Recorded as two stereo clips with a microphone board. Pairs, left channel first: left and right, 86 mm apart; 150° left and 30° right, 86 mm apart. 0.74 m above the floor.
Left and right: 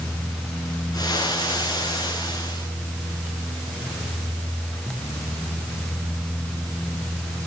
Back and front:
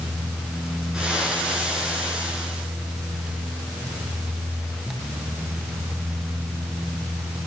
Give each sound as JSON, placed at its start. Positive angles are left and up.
{"t": 0.9, "sound": "frying", "azimuth_deg": 50, "distance_m": 10.0}